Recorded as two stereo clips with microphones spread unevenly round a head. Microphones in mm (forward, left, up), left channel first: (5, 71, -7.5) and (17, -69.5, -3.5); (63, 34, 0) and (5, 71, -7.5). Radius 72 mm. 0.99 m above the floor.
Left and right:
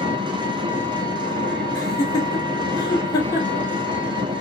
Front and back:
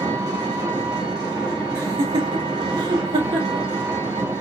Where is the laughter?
165° left, 1.9 m.